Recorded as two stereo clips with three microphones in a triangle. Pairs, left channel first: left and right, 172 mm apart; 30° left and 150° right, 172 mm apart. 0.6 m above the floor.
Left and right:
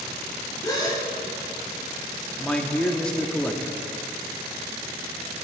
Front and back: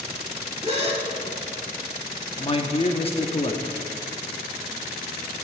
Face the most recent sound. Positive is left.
turn(degrees=10)